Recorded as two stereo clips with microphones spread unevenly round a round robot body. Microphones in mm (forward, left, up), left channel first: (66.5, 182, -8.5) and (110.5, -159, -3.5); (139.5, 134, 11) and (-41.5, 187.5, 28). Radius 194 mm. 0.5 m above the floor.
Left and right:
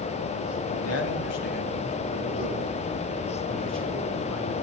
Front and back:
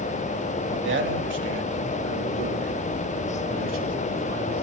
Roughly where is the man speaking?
Behind left.